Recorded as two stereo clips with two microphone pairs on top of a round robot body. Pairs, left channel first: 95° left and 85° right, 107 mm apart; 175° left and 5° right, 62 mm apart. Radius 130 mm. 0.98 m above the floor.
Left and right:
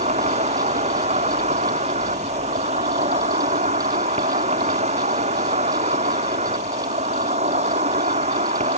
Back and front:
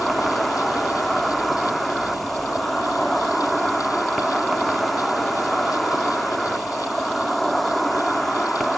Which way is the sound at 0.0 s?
95° right.